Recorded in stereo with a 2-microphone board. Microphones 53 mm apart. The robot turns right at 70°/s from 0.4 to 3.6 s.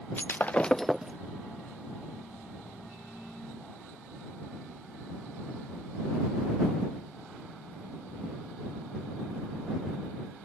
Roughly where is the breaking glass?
Behind left.